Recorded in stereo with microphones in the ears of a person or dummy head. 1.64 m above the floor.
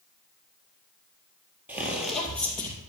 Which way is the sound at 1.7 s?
10° right (ahead or behind).